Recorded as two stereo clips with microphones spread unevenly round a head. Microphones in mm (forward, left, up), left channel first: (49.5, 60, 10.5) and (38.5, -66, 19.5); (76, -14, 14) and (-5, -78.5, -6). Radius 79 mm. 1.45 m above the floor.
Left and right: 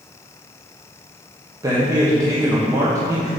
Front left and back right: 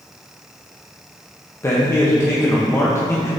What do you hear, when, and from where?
1.6 s a man speaking: 30° right, 1.3 m